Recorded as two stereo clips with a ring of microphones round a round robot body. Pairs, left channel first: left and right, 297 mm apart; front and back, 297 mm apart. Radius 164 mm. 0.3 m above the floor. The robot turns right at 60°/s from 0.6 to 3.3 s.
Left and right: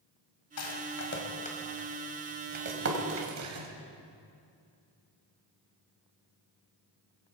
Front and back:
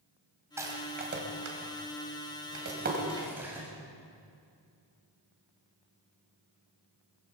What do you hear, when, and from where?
0.6 s a rattle: 100° left, 2 m; by 3.7 s 95° right, 2 m